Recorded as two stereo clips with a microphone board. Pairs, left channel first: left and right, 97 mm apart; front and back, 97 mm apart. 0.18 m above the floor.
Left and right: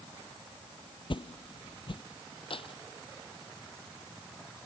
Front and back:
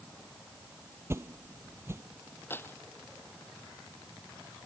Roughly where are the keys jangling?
Ahead left.